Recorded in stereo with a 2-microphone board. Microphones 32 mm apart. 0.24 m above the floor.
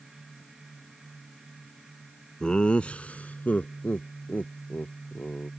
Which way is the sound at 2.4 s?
30° left (ahead or behind).